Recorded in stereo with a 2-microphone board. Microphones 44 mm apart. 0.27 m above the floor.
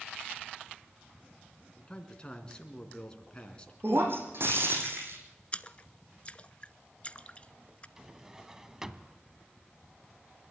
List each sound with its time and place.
1.8 s a man speaking: 20° left (ahead or behind), 3 m
3.8 s breaking glass: 60° right (ahead or behind), 4 m
5.5 s a splash: 30° left (ahead or behind), 0.5 m
8.0 s a drawer: 10° right (ahead or behind), 0.7 m